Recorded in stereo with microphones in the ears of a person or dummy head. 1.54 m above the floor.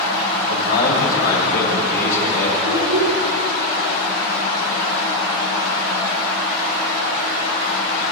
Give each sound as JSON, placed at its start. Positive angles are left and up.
{"t": 0.5, "sound": "a man speaking", "side_deg": 60, "distance_m": 9.5}
{"t": 2.6, "sound": "a child speaking", "side_deg": -70, "distance_m": 4.5}